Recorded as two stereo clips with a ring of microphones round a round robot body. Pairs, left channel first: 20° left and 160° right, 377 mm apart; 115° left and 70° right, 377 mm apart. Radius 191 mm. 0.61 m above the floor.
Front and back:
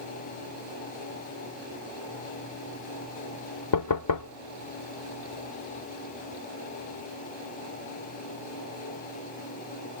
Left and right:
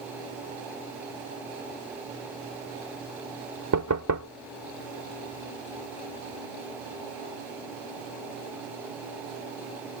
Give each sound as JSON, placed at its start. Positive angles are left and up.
{"t": 3.7, "sound": "knocking", "azimuth_deg": -20}